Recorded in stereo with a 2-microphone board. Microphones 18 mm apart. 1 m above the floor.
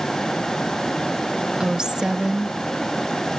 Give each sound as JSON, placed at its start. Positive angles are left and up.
{"t": 1.6, "sound": "a woman speaking", "side_deg": -40}